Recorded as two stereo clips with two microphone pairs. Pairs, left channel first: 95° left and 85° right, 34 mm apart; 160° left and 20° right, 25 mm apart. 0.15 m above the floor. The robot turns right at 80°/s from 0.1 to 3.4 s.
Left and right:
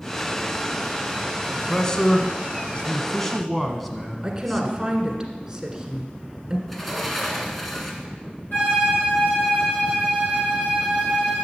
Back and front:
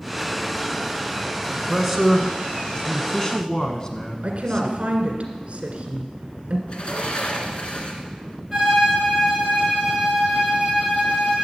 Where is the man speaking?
20° left, 1.1 m; by 4.9 s 170° left, 1.1 m.